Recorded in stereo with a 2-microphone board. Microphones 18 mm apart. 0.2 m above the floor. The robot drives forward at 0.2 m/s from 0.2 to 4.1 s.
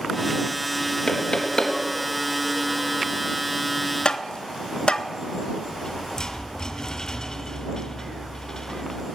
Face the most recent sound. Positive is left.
turn(degrees=40)  # may be behind; listen again after turning